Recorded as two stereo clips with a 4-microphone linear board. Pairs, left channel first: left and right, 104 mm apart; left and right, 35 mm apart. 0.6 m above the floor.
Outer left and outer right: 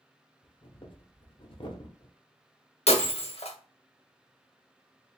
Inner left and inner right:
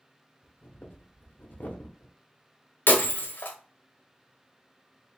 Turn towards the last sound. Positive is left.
turn(degrees=80)